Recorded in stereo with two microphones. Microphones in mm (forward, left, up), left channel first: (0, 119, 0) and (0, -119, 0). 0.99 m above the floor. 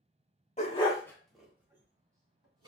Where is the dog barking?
30° left (ahead or behind), 0.8 m; by 2.7 s 20° right (ahead or behind), 1.9 m.